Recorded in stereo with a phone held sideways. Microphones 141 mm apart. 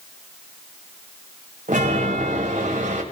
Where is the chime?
70° right (ahead or behind), 1.9 m.